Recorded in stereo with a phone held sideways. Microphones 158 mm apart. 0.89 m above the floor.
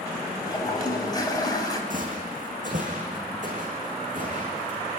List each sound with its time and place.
0.4 s a toilet flushing: 25° left (ahead or behind), 4 m
1.9 s footsteps: 60° right (ahead or behind), 4 m; by 4.8 s 55° right (ahead or behind), 5.5 m